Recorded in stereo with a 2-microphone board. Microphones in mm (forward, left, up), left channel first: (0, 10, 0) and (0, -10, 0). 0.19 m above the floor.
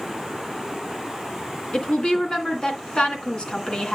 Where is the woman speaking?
50° left (ahead or behind), 2.5 m.